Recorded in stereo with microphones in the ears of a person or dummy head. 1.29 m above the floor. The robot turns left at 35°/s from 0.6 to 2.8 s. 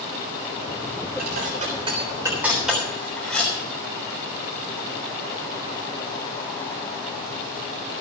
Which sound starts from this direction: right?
Dishes clattering, at 1.2 s.